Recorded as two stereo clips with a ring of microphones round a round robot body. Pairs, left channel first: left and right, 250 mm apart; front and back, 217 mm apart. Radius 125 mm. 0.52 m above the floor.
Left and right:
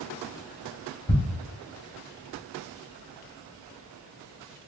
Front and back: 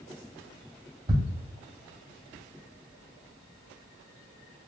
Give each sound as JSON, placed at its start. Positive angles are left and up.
{"t": 1.1, "sound": "ticking", "azimuth_deg": 145, "distance_m": 1.8}